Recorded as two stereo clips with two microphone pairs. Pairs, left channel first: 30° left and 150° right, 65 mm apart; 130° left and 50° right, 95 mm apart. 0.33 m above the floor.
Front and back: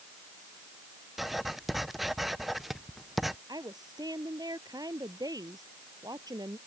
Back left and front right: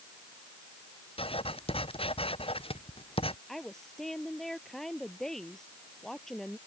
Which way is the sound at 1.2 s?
120° left.